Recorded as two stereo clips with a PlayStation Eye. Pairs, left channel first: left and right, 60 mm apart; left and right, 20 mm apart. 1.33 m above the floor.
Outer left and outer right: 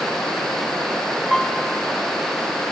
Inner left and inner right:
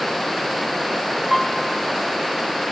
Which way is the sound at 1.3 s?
Centre (ahead or behind).